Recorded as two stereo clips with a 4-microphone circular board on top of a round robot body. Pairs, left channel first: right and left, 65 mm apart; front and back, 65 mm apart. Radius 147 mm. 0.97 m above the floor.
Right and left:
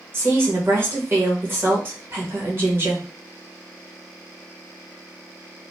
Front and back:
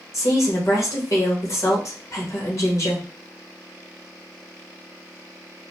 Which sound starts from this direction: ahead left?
A woman speaking, at 0.1 s.